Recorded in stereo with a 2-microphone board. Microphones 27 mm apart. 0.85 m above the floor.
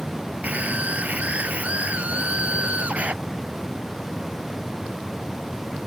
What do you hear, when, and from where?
0.4 s a scream: 65° right (ahead or behind); by 3.1 s 55° right (ahead or behind)